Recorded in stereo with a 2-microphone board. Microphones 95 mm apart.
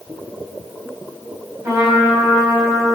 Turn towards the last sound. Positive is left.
turn(degrees=-30)  # may be behind; listen again after turning